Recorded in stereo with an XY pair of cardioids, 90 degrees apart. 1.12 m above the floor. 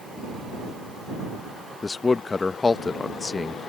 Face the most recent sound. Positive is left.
turn(degrees=30)